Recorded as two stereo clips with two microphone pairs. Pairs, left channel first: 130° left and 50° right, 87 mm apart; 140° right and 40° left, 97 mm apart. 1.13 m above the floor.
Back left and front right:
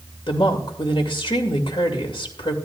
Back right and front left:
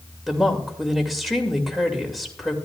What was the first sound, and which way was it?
A woman speaking, 130° left.